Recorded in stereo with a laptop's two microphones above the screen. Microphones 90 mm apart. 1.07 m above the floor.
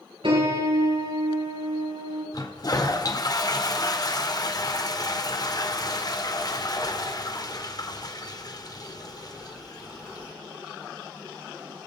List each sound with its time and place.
0.2 s a piano: 75° right (ahead or behind), 4 m
2.3 s a toilet flushing: 45° left (ahead or behind), 1.3 m